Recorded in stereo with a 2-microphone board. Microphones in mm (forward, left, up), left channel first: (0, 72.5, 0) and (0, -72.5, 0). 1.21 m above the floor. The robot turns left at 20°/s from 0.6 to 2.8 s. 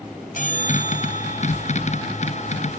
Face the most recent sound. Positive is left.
turn(degrees=70)